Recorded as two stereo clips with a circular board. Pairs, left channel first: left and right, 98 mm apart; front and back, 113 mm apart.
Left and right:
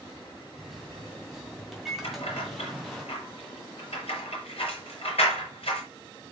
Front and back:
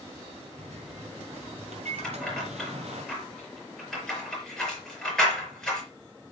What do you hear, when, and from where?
0.6 s a microwave: 175° right, 2.5 m
2.0 s keys jangling: 85° left, 5.5 m